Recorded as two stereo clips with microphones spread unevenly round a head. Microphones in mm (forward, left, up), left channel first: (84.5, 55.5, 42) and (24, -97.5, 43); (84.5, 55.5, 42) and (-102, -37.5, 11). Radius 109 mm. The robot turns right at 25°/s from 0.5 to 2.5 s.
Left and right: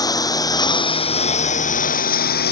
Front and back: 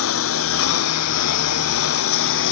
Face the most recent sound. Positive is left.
turn(degrees=55)